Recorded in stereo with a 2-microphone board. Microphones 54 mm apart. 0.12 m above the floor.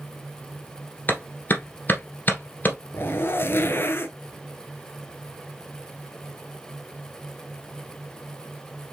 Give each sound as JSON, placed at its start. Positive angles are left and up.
{"t": 1.1, "sound": "a clap", "side_deg": 35, "distance_m": 1.6}
{"t": 2.9, "sound": "a zipper", "side_deg": 45, "distance_m": 0.7}